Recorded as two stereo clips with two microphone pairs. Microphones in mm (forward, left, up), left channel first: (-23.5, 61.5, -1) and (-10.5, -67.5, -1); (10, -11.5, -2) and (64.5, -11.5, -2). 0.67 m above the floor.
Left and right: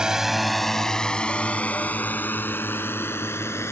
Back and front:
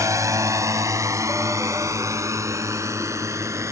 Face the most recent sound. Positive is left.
turn(degrees=25)